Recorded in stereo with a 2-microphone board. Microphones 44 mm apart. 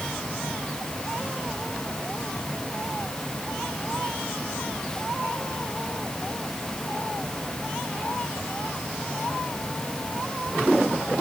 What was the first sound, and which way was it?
Only background noise.